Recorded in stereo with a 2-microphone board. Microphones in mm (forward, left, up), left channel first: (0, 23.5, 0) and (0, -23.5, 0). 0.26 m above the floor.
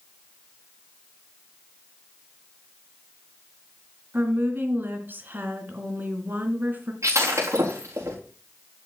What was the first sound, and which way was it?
A woman speaking, 40° right (ahead or behind).